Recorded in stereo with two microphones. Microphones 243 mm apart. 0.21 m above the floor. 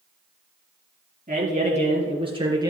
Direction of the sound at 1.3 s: 35° right (ahead or behind).